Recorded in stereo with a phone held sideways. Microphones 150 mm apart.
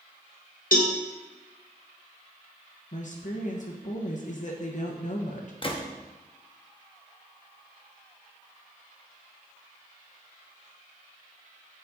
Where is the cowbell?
70° left (ahead or behind), 0.9 m.